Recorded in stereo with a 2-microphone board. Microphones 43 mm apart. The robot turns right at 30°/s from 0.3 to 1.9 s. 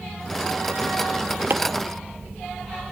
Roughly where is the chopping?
Right.